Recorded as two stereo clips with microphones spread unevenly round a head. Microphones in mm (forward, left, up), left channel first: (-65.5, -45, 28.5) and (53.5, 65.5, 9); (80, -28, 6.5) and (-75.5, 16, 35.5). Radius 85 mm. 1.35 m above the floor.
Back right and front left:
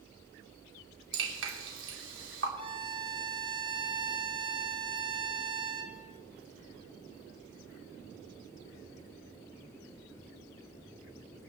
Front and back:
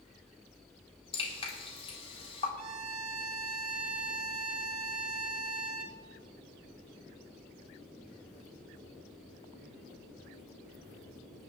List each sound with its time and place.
1.1 s dripping: 45° left, 3.5 m
2.6 s a violin: 105° left, 1.6 m